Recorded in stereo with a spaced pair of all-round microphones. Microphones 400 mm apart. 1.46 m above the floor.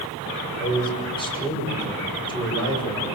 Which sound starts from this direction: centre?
A man speaking, at 0.6 s.